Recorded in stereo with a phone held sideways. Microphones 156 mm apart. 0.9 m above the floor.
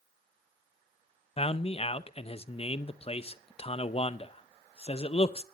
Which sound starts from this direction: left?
A man speaking, at 1.4 s.